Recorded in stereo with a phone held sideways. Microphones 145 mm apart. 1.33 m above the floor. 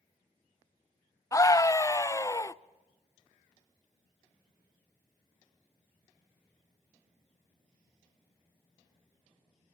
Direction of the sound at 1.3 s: 25° left (ahead or behind).